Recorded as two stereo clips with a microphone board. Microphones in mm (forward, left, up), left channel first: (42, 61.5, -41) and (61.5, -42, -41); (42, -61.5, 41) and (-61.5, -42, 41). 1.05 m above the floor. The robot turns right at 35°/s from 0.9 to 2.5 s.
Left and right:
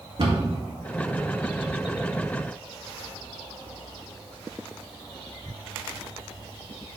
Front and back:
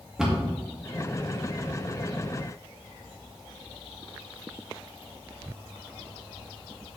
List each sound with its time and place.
0.2 s a cupboard door: 110° right, 1.8 m